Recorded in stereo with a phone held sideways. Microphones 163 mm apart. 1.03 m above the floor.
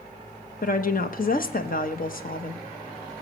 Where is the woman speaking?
60° left (ahead or behind), 1.0 m.